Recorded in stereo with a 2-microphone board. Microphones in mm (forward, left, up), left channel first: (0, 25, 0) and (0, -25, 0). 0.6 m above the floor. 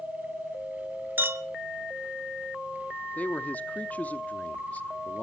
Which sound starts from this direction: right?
A clink, at 1.2 s.